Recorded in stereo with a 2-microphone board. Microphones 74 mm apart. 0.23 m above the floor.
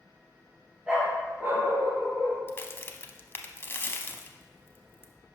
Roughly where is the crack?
Left.